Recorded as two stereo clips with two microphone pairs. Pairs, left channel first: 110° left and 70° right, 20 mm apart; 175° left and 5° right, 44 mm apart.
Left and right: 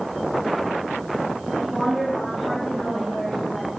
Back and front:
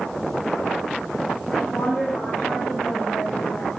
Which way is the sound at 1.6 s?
170° left.